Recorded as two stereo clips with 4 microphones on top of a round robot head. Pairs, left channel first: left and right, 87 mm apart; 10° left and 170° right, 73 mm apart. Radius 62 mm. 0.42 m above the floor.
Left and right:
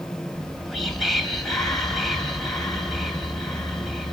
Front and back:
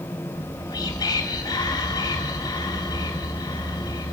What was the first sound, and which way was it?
Whispering, 5° left.